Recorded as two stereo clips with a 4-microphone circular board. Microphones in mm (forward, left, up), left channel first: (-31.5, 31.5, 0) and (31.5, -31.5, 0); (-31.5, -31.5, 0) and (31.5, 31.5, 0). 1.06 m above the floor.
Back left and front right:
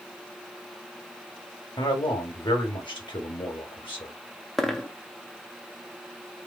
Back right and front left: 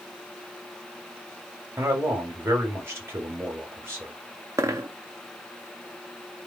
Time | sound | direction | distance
1.8 | a man speaking | 105° left | 1.6 m
4.6 | a dropped coin | 55° left | 0.6 m